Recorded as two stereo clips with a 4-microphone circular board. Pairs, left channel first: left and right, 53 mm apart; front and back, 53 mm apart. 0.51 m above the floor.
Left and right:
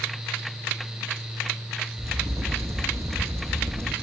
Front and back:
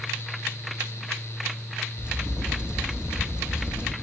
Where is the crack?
110° right, 1.9 m.